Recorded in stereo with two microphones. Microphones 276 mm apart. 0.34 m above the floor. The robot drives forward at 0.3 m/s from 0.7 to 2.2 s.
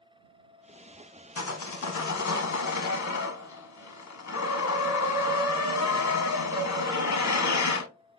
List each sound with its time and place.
1.4 s sawing: 70° left (ahead or behind), 0.6 m; by 7.9 s 80° left, 0.6 m